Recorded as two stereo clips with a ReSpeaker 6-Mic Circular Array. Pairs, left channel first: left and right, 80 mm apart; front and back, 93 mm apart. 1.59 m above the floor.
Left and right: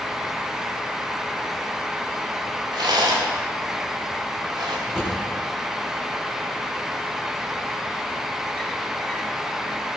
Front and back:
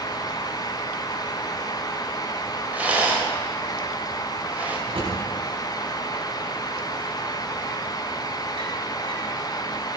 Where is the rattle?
105° right, 2.5 m.